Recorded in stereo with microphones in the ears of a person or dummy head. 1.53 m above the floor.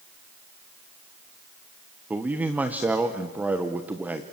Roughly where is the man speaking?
Centre.